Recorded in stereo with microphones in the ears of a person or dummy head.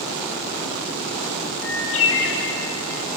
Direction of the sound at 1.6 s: 75° left (ahead or behind).